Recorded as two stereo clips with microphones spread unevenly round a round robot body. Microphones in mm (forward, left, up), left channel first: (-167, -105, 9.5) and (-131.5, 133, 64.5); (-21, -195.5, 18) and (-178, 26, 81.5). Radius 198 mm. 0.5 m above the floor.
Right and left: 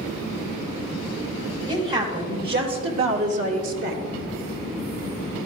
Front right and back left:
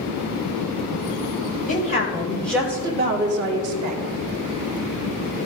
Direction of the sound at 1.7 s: 5° left.